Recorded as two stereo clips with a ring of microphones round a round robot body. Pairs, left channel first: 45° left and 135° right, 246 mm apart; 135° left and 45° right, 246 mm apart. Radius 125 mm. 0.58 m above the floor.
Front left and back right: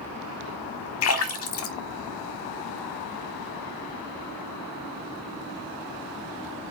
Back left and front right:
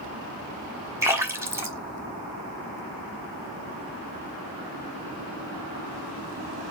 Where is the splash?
35° left, 1.0 m.